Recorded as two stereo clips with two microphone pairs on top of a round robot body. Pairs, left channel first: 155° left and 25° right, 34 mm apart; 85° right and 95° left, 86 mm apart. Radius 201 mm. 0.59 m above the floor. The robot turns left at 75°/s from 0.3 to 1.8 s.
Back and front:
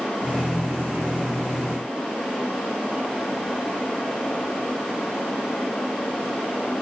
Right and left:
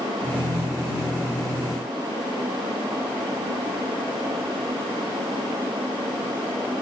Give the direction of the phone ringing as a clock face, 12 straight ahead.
No phone ringing in this recording.